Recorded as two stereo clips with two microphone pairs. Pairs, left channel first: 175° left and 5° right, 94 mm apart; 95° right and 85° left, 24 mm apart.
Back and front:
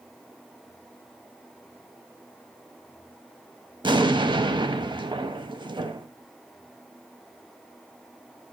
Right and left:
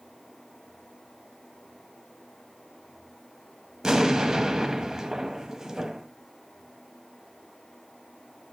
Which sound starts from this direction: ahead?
An explosion, at 3.8 s.